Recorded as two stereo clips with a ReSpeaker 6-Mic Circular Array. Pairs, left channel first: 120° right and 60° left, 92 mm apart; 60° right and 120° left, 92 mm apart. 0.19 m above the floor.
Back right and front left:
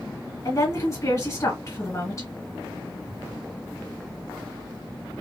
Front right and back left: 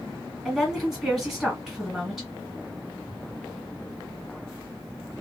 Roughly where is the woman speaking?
Behind right.